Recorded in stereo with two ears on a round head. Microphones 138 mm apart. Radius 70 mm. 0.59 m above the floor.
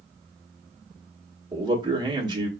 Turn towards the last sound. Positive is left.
turn(degrees=-30)  # may be behind; listen again after turning